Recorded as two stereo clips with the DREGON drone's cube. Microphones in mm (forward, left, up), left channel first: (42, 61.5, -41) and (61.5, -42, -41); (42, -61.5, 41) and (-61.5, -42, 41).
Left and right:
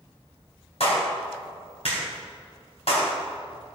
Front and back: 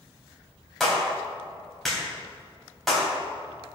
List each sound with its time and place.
0.8 s a clap: 80° left, 3 m